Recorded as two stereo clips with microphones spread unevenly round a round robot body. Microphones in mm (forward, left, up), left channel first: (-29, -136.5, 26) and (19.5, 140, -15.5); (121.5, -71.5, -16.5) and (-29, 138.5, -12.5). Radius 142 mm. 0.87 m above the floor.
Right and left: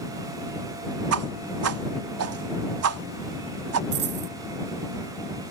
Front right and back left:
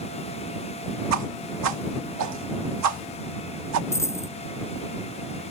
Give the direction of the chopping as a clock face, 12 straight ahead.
No chopping in this recording.